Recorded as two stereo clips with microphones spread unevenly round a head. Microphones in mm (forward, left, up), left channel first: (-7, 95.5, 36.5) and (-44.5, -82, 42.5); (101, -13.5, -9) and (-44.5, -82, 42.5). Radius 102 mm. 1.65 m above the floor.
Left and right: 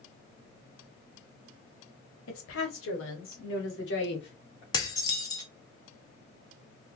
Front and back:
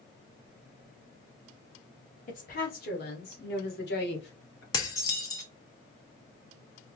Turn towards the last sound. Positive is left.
turn(degrees=110)